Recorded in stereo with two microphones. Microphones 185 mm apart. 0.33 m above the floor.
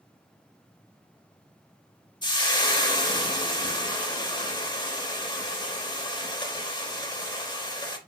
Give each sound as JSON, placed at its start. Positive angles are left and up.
{"t": 2.2, "sound": "frying", "side_deg": 25, "distance_m": 0.5}